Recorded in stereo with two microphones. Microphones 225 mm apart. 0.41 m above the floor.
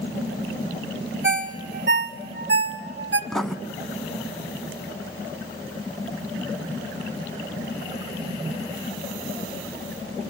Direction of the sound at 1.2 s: 55° right (ahead or behind).